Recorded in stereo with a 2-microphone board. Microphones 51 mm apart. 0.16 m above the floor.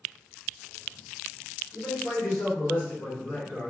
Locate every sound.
1.7 s a man speaking: 55° left (ahead or behind), 1.9 m